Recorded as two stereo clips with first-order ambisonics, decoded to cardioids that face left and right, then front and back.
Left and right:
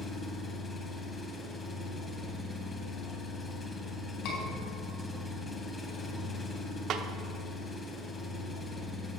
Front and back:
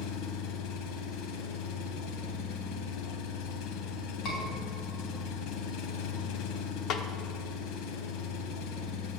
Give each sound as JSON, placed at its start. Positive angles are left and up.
{"t": 0.0, "sound": "an engine running", "azimuth_deg": 15, "distance_m": 1.1}
{"t": 4.2, "sound": "a scream", "azimuth_deg": 55, "distance_m": 4.0}
{"t": 6.9, "sound": "a snare drum", "azimuth_deg": -45, "distance_m": 0.8}